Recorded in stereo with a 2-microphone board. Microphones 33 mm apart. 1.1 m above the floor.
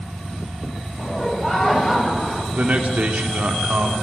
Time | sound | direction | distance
1.0 | laughter | 10° left (ahead or behind) | 6 m
2.5 | a man speaking | 50° right (ahead or behind) | 3 m